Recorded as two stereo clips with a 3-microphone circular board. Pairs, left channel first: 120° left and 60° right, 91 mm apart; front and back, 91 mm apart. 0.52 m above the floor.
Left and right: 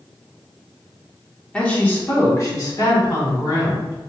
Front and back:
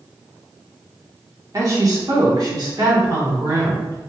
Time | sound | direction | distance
1.5 | a woman speaking | 170° right | 1.0 m